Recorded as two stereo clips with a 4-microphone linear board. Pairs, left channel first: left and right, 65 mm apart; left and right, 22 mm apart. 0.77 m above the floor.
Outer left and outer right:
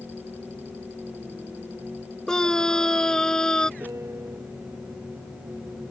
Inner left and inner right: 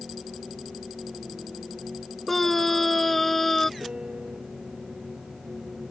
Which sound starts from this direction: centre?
A scream, at 2.3 s.